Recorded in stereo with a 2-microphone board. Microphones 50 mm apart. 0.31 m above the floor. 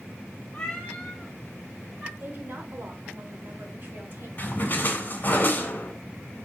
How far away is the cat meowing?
About 1.9 m.